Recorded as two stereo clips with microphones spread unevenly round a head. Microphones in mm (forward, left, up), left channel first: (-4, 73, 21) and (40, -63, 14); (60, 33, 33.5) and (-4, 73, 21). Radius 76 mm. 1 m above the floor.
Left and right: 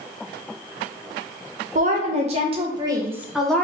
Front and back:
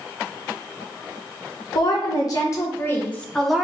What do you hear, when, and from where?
1.8 s a woman speaking: 65° right, 1.3 m; by 3.6 s 170° left, 0.8 m